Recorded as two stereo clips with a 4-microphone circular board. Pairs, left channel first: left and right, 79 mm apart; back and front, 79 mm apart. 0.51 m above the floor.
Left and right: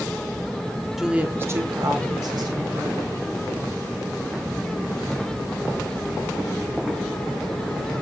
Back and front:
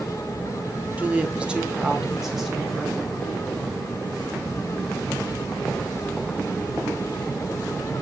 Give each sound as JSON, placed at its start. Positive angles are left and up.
{"t": 1.0, "sound": "a woman speaking", "azimuth_deg": -10, "distance_m": 1.3}